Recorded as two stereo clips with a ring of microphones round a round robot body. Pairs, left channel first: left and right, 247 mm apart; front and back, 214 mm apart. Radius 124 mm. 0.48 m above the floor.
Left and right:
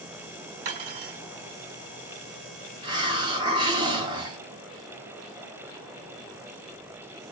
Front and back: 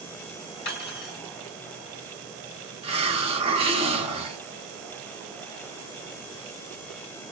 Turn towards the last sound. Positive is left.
turn(degrees=-145)